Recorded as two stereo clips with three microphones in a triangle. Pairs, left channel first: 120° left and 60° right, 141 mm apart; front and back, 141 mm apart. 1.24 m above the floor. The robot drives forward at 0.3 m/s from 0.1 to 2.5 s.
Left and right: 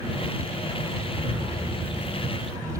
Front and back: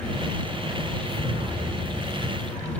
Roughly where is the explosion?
Behind right.